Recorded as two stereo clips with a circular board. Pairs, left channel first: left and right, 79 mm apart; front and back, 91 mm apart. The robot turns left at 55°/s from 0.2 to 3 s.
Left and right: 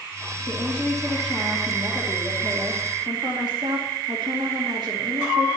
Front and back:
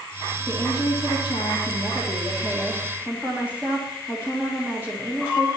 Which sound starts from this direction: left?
A woman speaking, at 0.5 s.